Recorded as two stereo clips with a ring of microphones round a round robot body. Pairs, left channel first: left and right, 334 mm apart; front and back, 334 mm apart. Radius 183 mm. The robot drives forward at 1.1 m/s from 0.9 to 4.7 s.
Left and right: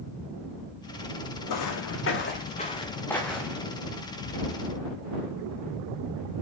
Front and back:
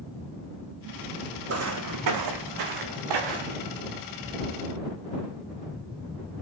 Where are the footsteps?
130° left, 1.6 m; by 3.7 s 175° right, 2.5 m.